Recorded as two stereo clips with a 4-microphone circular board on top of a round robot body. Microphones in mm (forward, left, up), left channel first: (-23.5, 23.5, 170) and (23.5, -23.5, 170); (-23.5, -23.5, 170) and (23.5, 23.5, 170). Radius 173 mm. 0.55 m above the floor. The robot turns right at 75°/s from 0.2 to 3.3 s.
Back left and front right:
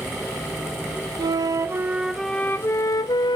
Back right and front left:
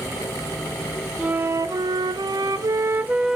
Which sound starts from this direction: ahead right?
A flute, at 1.2 s.